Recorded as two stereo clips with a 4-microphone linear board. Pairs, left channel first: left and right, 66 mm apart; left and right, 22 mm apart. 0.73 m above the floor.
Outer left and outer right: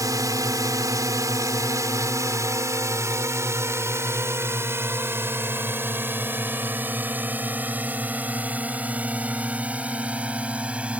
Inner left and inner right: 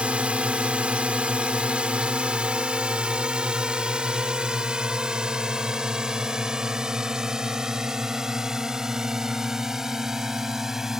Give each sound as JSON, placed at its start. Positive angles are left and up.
{"t": 0.0, "sound": "a drone", "side_deg": -65}